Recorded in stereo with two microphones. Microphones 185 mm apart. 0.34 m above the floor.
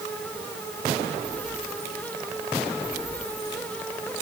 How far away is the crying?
No crying in this recording.